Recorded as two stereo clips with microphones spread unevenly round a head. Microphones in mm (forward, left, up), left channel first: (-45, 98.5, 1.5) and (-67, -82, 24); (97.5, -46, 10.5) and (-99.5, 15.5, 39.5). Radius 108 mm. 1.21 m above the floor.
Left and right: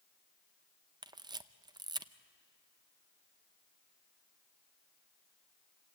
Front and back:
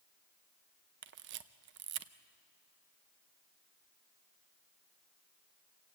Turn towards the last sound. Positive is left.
turn(degrees=-165)